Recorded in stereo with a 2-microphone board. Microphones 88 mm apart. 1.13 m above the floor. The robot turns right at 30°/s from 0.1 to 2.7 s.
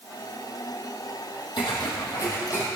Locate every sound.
1.6 s footsteps: 60° left (ahead or behind), 2 m; by 2.7 s 25° left (ahead or behind), 2.5 m